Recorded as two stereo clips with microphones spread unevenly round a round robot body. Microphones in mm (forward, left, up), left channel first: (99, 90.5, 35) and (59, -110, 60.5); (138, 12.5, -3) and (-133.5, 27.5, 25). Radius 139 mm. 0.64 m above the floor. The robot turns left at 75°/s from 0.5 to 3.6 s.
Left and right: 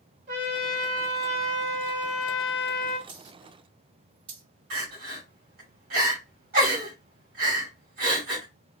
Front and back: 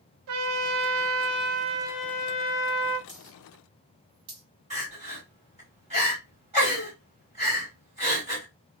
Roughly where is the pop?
I don't hear a pop.